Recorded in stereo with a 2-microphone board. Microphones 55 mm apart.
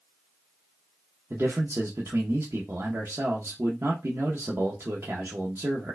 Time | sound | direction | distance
1.3 | a man speaking | 50° right (ahead or behind) | 0.6 m